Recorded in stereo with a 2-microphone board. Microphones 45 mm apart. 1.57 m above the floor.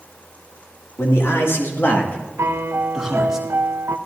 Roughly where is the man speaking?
Left.